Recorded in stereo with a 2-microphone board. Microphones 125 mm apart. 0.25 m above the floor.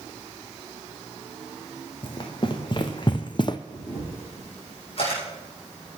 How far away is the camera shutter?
About 7 m.